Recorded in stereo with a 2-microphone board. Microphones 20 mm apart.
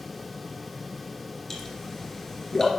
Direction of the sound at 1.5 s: 15° left (ahead or behind).